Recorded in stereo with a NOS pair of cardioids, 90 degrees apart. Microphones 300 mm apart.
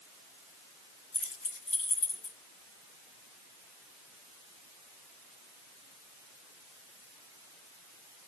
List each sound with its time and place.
1.1 s keys jangling: 45° left, 3 m; by 2.4 s 55° left, 3.5 m